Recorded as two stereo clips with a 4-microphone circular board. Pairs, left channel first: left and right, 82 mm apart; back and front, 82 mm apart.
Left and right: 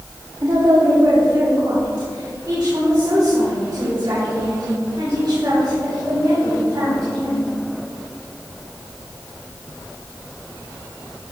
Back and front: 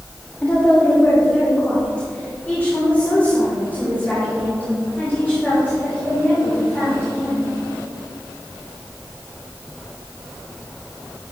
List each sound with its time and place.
0.4 s a woman speaking: 105° right, 1.4 m; by 7.5 s 120° right, 5 m